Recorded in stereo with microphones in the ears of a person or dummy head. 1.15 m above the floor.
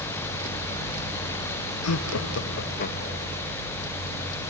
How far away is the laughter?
About 0.8 m.